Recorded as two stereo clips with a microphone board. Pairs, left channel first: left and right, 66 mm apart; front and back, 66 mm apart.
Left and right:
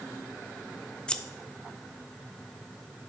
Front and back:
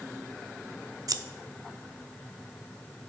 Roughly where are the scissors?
Behind.